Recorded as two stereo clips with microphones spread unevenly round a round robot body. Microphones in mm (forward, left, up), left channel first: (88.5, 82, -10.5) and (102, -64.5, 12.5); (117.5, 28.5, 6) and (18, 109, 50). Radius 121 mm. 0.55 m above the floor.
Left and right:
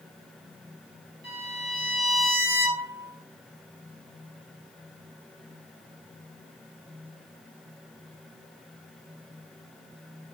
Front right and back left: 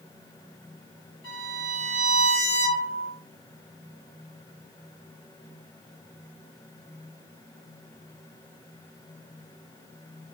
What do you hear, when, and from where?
1.2 s a violin: 85° right, 1.8 m